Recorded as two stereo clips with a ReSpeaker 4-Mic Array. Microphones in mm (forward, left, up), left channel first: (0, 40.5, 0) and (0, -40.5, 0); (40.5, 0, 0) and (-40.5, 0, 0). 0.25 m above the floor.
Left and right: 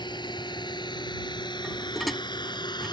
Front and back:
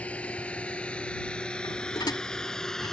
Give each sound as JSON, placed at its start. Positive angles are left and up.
{"t": 0.0, "sound": "a drone", "azimuth_deg": 75}
{"t": 1.6, "sound": "dishes clattering", "azimuth_deg": 0}